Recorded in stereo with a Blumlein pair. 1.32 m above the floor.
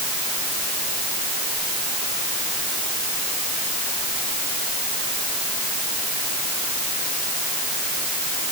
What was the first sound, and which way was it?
Only background noise.